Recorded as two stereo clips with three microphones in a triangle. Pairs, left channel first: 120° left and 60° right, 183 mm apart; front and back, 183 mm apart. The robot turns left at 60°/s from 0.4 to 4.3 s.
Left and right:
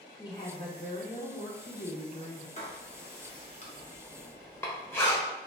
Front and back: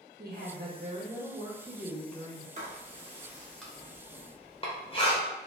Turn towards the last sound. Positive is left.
turn(degrees=45)